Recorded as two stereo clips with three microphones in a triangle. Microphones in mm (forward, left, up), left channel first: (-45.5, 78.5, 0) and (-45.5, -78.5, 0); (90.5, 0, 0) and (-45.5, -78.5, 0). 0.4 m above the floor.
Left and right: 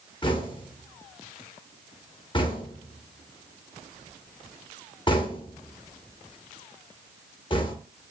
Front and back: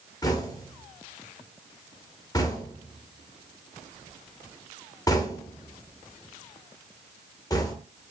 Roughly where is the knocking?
Left.